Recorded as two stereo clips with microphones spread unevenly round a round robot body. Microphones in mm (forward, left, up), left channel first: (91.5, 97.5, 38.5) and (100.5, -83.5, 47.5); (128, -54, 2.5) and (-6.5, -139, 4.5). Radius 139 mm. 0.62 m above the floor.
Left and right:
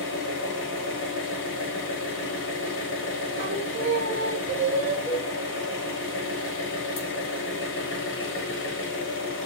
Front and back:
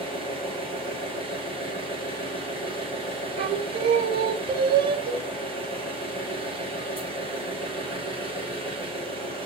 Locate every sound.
0.0 s an engine running: 115° left, 1.3 m
3.4 s singing: 120° right, 0.7 m
5.1 s a cowbell: 170° right, 1.0 m